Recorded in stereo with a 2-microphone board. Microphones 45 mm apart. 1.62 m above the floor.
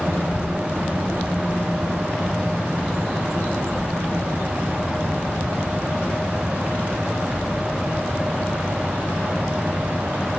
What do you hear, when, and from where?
0.1 s a child speaking: 50° left (ahead or behind), 0.9 m; by 10.4 s 85° left, 6.5 m